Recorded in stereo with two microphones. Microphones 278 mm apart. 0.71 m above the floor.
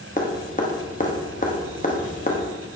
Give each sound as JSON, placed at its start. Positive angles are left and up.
{"t": 0.2, "sound": "dripping", "side_deg": 30, "distance_m": 1.1}